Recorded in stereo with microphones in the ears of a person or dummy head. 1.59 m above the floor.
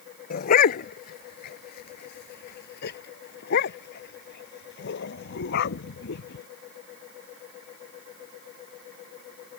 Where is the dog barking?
50° left (ahead or behind); by 6.5 s 65° left (ahead or behind).